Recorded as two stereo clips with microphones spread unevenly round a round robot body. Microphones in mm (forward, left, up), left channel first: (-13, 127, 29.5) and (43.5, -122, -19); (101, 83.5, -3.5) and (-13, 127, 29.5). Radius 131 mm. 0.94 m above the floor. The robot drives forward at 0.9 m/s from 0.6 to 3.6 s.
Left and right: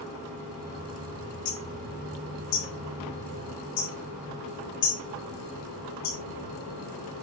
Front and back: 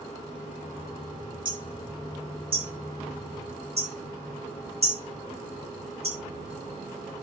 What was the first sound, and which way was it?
Hammering, 110° left.